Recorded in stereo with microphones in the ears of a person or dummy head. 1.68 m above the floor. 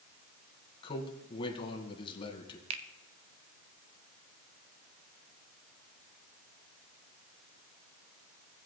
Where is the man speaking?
30° left (ahead or behind), 1.7 m.